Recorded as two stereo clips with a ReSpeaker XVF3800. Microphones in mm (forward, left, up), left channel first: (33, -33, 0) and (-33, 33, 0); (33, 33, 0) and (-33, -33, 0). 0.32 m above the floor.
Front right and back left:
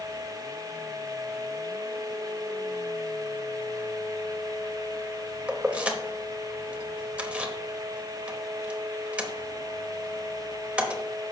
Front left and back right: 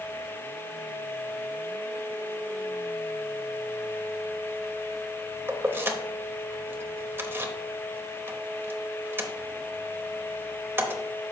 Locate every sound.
5.5 s keys jangling: 165° right, 0.8 m